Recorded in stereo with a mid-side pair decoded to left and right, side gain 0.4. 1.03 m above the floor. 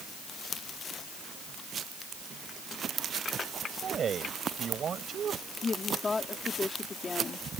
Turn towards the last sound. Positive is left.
turn(degrees=40)